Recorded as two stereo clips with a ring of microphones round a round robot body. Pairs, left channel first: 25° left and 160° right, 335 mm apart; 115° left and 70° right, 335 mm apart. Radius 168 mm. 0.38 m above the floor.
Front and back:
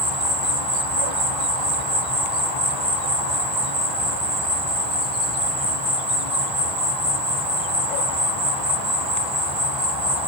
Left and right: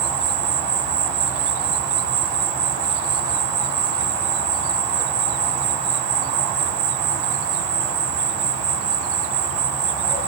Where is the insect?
85° right, 3 m.